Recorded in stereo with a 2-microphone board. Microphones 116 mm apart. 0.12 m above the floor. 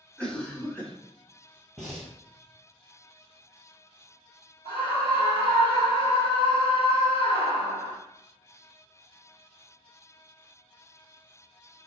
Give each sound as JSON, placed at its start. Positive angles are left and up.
{"t": 0.2, "sound": "a cough", "side_deg": 10, "distance_m": 1.0}
{"t": 1.8, "sound": "breathing", "side_deg": 0, "distance_m": 1.2}
{"t": 4.7, "sound": "a scream", "side_deg": 45, "distance_m": 1.7}